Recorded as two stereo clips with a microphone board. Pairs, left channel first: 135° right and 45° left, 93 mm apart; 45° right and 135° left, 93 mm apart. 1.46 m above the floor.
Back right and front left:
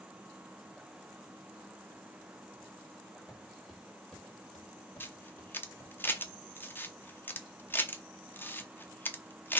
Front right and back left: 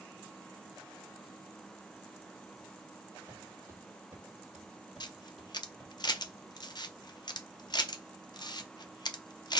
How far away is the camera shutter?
About 0.6 m.